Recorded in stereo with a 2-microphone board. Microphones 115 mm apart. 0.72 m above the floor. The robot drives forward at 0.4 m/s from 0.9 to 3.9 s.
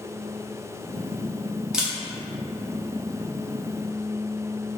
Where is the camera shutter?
5° right (ahead or behind), 0.7 m.